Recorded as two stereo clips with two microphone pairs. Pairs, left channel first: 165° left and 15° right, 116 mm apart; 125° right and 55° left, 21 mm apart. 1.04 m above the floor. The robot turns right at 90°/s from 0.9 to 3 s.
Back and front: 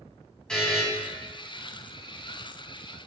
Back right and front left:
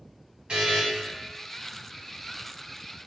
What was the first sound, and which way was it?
A buzzer, 80° left.